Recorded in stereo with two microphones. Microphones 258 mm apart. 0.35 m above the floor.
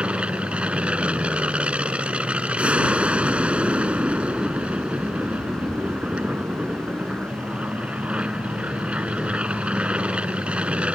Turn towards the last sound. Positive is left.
turn(degrees=-5)  # may be behind; listen again after turning